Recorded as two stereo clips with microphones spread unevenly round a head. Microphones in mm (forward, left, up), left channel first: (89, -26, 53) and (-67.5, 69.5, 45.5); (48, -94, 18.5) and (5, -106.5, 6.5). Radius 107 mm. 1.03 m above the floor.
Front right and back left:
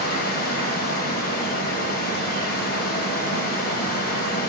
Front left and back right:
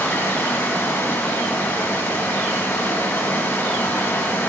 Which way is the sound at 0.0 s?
10° left.